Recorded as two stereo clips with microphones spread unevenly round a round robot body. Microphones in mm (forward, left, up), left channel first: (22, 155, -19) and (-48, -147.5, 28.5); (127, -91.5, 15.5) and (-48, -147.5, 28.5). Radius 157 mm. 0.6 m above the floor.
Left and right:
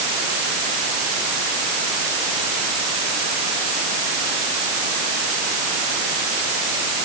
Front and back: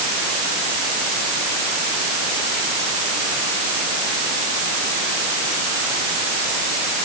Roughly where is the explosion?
No explosion in this recording.